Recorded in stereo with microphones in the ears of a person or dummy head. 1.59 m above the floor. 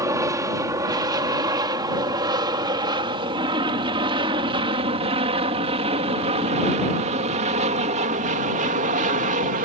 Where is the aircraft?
15° right (ahead or behind); by 9.6 s 40° right (ahead or behind).